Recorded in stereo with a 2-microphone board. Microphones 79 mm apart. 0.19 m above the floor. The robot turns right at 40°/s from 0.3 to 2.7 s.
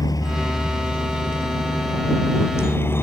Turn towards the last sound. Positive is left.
turn(degrees=30)  # may be behind; listen again after turning